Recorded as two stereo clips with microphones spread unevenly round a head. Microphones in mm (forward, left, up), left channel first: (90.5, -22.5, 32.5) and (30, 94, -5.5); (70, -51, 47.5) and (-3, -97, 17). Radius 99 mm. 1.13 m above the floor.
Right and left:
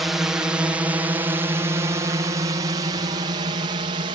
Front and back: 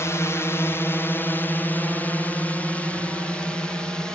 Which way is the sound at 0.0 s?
90° left.